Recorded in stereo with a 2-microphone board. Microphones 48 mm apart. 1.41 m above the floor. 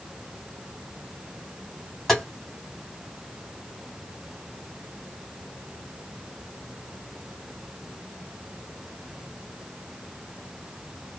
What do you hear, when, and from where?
2.1 s tapping: 5° left (ahead or behind), 1.7 m